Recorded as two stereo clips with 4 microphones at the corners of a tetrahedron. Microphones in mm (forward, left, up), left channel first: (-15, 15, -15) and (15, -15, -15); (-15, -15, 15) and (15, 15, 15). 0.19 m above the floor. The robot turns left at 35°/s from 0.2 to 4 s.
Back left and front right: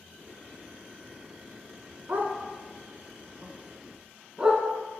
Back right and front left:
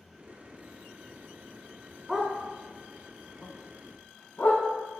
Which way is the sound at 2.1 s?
40° right.